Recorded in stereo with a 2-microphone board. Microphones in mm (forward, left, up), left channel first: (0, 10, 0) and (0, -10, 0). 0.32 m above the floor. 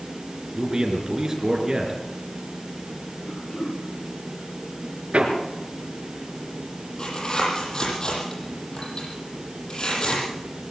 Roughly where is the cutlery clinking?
No cutlery clinking in this recording.